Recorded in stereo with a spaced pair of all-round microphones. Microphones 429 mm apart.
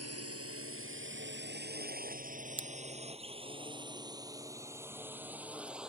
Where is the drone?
35° right (ahead or behind); by 5.9 s centre (ahead or behind).